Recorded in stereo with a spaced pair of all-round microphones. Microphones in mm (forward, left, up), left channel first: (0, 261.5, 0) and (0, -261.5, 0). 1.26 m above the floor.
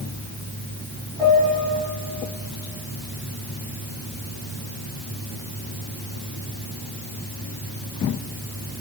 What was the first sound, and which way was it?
A piano, 85° right.